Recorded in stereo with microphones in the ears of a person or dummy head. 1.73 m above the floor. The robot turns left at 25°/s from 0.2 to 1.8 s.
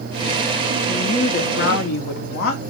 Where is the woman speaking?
45° left (ahead or behind), 1.2 m; by 2.6 s 65° left (ahead or behind), 1.2 m.